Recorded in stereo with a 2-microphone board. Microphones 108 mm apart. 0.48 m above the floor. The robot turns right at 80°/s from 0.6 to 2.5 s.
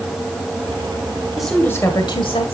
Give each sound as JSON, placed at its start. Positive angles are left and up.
{"t": 1.4, "sound": "a woman speaking", "azimuth_deg": -5, "distance_m": 1.7}